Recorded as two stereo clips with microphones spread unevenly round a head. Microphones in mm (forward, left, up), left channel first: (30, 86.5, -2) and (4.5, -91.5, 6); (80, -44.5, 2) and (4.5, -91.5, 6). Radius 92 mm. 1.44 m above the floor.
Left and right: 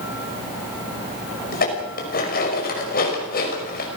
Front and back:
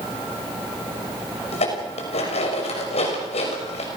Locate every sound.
1.5 s dishes clattering: 40° left, 5.5 m